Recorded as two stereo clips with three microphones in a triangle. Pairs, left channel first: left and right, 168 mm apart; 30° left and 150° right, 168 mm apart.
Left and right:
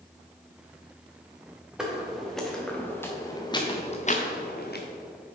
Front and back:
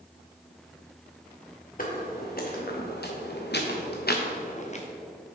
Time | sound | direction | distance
1.8 | footsteps | 5° right | 2.5 m